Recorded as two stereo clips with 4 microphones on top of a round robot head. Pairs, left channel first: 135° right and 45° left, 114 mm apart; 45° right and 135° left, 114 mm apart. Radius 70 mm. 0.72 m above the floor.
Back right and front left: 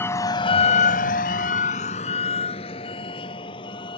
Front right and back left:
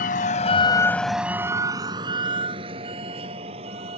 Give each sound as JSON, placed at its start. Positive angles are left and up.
{"t": 0.0, "sound": "a vehicle", "azimuth_deg": -60}